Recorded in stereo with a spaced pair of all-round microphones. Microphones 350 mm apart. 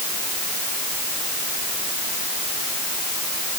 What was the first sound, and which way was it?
Only background noise.